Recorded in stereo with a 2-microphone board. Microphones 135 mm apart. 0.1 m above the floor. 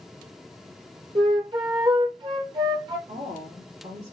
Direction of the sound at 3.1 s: 55° right (ahead or behind).